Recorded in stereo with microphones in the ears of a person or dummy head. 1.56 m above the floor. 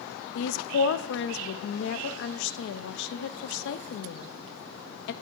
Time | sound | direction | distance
0.3 | a woman speaking | 70° left (ahead or behind) | 0.6 m